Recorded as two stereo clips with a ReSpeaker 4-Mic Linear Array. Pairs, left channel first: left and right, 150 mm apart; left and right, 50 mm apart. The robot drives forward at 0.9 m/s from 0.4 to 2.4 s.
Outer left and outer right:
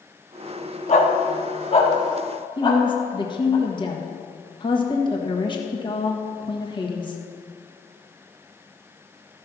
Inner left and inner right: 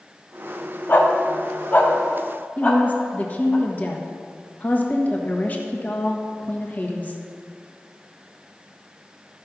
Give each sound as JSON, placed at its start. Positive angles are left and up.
{"t": 0.9, "sound": "a dog barking", "side_deg": 45, "distance_m": 1.2}
{"t": 2.6, "sound": "a woman speaking", "side_deg": 30, "distance_m": 1.4}